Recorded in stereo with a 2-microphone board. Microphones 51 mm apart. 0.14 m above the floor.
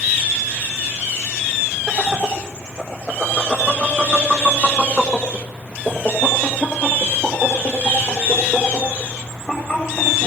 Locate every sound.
1.9 s laughter: 20° right (ahead or behind), 4 m; by 10.3 s 30° left (ahead or behind), 8 m